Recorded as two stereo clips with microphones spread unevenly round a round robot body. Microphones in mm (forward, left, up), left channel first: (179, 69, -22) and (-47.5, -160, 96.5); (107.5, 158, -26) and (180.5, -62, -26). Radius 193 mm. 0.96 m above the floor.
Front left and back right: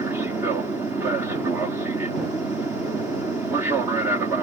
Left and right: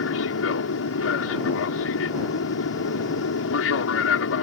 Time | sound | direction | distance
0.0 | an aircraft | 130° left | ?